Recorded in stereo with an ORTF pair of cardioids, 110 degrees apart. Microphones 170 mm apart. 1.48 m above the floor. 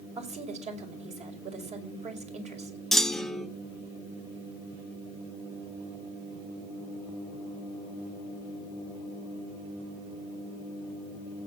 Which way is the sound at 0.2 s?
40° right.